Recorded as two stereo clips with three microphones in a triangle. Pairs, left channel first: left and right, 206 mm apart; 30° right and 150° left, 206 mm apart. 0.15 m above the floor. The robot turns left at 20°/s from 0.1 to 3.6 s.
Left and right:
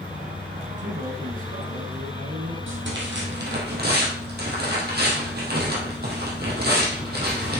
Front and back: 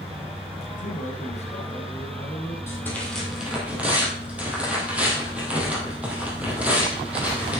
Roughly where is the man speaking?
Ahead right.